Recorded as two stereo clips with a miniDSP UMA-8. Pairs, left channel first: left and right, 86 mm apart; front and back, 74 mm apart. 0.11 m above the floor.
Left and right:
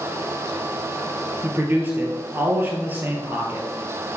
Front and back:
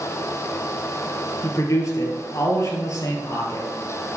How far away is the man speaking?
About 1.9 m.